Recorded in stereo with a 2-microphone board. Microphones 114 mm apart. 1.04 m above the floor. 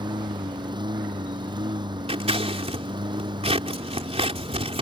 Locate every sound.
0.0 s a lawn mower: 45° right (ahead or behind)
2.1 s scissors: 65° right (ahead or behind)